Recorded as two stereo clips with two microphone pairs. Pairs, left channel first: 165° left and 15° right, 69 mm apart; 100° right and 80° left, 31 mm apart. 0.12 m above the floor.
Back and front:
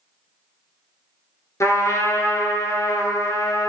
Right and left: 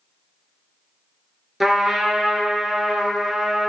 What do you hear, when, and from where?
1.6 s a trumpet: 165° left, 0.7 m